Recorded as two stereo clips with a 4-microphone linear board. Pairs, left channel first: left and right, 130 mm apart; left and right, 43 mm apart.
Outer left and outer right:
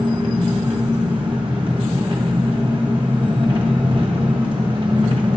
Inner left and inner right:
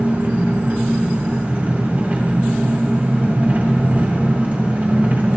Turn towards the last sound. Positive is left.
turn(degrees=-40)  # may be behind; listen again after turning